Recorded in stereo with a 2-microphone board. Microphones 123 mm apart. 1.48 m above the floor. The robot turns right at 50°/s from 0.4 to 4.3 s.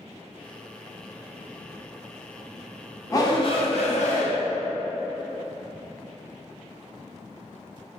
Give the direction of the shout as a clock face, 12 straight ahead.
11 o'clock.